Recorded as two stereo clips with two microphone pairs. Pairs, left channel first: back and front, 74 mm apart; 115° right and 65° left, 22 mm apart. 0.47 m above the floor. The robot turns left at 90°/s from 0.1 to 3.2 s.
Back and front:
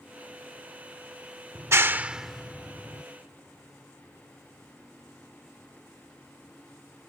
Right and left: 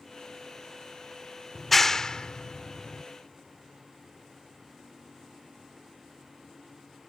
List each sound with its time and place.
1.6 s a clap: 20° right; by 3.0 s 155° right